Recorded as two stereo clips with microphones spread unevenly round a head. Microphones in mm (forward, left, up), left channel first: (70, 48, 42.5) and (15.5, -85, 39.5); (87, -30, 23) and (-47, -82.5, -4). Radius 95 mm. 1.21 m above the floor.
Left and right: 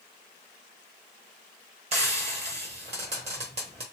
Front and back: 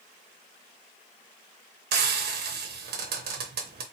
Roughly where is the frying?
Behind.